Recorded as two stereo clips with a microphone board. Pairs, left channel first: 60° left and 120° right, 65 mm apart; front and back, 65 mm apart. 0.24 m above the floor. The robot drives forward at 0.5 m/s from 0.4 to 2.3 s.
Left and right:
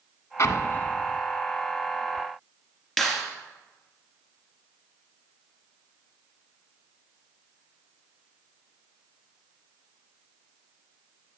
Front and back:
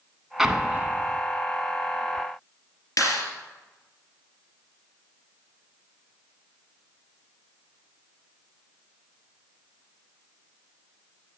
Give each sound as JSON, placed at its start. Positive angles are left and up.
{"t": 0.4, "sound": "an explosion", "azimuth_deg": 95, "distance_m": 0.5}
{"t": 3.0, "sound": "a clap", "azimuth_deg": -35, "distance_m": 2.5}